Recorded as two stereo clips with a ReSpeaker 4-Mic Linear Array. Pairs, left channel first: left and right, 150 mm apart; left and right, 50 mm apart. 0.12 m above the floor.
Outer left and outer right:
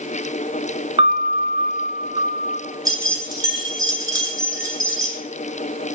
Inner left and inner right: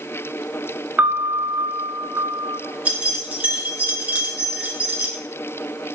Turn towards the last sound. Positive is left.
turn(degrees=-25)  # may be behind; listen again after turning